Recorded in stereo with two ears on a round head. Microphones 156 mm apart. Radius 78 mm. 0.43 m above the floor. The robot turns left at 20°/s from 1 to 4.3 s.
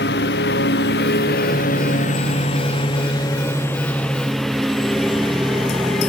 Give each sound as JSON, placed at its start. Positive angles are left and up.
{"t": 0.0, "sound": "a lawn mower", "azimuth_deg": 65}